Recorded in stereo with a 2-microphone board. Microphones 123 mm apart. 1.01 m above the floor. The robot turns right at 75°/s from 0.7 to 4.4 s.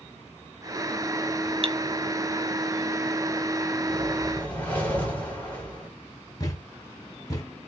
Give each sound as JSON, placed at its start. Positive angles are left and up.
{"t": 1.6, "sound": "cutlery clinking", "side_deg": -50, "distance_m": 0.5}
{"t": 3.9, "sound": "a whoosh", "azimuth_deg": -25, "distance_m": 3.0}
{"t": 6.4, "sound": "a thud", "side_deg": 30, "distance_m": 1.5}